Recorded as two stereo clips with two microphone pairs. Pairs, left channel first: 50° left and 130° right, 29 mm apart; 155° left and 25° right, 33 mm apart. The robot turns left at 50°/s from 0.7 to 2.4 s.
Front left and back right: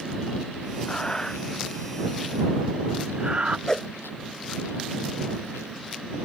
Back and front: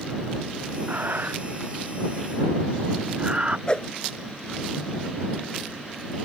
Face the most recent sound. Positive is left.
turn(degrees=115)